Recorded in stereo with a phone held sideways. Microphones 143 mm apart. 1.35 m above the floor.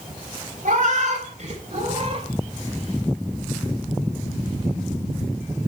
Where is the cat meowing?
65° right (ahead or behind), 3.5 m; by 2.3 s 40° right (ahead or behind), 3.5 m.